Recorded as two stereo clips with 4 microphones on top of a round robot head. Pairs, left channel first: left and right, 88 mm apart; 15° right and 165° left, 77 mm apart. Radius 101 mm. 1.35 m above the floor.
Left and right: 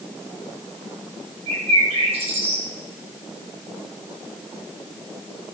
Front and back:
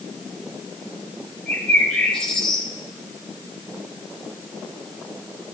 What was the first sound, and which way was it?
A bird, 95° right.